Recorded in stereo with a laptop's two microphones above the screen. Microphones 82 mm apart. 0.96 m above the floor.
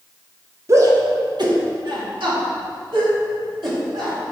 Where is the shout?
40° right (ahead or behind), 0.7 m; by 4.2 s 80° right, 2.5 m.